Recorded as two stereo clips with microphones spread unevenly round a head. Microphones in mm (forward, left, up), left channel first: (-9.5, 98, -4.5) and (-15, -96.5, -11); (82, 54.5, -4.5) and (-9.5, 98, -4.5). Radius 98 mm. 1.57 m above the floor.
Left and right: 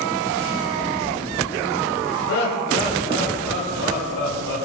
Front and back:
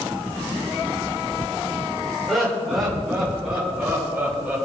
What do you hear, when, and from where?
2.3 s laughter: 65° left, 5 m; by 4.6 s 75° left, 7 m